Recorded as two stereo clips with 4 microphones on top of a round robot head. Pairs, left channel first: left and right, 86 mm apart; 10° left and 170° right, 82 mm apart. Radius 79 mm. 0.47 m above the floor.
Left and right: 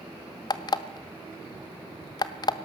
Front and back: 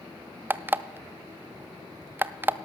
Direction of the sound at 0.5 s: 125° left.